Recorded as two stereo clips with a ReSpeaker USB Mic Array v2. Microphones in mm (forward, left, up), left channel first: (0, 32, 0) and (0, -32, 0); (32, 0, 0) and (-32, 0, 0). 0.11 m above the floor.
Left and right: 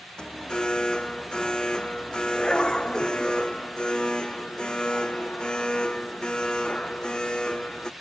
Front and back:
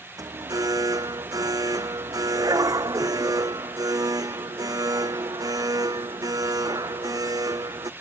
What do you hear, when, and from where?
0.2 s an alarm: 165° left